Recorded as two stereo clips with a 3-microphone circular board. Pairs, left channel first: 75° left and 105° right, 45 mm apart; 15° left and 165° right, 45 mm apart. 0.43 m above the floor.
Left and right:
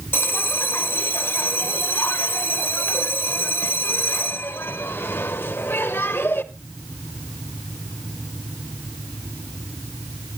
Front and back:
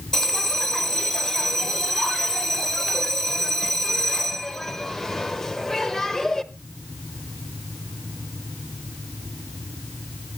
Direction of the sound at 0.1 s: 100° left.